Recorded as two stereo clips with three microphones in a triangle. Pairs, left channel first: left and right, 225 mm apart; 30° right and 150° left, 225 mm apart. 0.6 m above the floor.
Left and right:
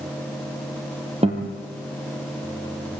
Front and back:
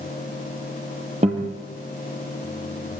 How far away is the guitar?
About 5 m.